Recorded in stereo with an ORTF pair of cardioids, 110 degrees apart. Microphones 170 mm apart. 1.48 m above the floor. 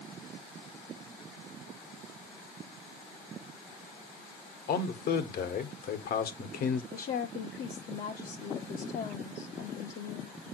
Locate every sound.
4.7 s a man speaking: 60° left, 1.7 m
6.9 s a woman speaking: 60° left, 1.4 m